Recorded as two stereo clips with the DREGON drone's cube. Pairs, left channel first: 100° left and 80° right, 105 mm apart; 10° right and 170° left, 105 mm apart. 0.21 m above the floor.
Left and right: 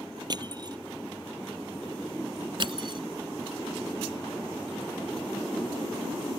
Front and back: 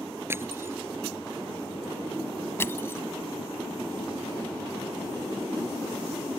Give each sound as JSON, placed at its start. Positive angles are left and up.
{"t": 0.3, "sound": "crushing", "azimuth_deg": -125}
{"t": 2.6, "sound": "crushing", "azimuth_deg": -70}